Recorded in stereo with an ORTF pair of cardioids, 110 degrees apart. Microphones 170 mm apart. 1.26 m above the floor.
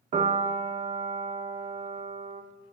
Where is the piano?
55° right, 2 m.